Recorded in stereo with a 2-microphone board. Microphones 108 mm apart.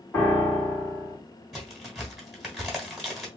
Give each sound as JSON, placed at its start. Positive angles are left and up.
{"t": 0.1, "sound": "a piano", "side_deg": 20, "distance_m": 1.6}
{"t": 1.5, "sound": "a crack", "side_deg": -5, "distance_m": 1.4}